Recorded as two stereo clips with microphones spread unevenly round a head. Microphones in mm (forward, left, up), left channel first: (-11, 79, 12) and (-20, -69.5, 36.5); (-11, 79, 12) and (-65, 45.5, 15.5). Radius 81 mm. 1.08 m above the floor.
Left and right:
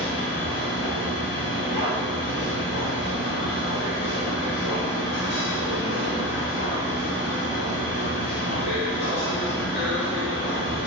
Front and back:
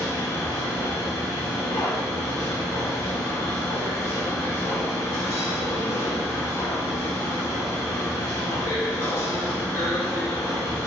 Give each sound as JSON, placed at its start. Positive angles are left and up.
{"t": 0.0, "sound": "a machine running", "azimuth_deg": 65, "distance_m": 2.0}